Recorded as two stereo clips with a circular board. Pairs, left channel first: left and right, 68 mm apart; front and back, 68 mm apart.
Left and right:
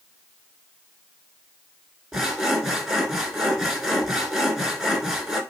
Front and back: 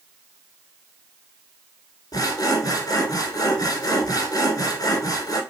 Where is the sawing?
5° right, 1.0 m.